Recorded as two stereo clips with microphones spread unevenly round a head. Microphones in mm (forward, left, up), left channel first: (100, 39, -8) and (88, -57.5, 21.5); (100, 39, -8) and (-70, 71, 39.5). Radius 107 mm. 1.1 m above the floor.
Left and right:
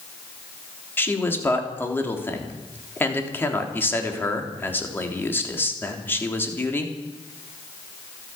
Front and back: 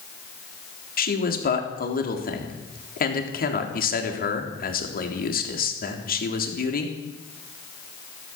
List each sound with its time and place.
1.0 s a man speaking: 15° left, 3.5 m